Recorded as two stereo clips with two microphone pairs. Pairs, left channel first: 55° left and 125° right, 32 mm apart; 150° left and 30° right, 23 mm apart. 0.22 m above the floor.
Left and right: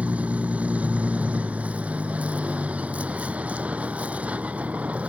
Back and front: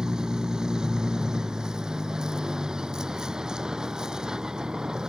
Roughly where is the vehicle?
Right.